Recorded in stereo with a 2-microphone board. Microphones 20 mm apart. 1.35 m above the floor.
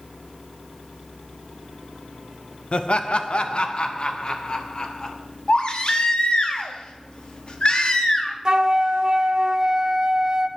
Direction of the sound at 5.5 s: 55° left (ahead or behind).